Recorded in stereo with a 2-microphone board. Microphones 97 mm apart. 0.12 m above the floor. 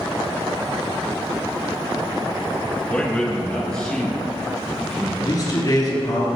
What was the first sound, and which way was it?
A man speaking, 10° left (ahead or behind).